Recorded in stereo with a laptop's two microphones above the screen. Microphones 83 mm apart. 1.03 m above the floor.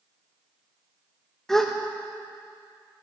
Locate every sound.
1.5 s a gasp: 5° left (ahead or behind), 0.7 m